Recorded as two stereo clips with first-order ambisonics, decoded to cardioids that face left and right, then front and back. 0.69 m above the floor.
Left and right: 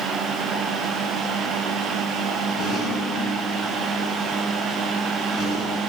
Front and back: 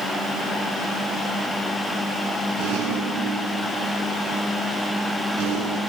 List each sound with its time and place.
2.6 s a rattle: 150° left, 7.5 m